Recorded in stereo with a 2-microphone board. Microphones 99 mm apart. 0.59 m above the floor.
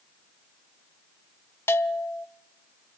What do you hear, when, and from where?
1.7 s a bell: 25° left (ahead or behind), 0.6 m